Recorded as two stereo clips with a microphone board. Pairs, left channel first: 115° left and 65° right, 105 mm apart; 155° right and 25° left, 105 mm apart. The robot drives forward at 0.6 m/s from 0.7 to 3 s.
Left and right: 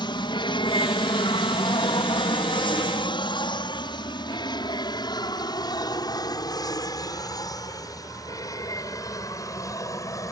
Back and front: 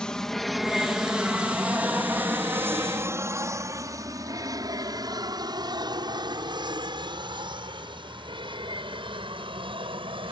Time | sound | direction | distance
0.0 | an aircraft | 125° left | ?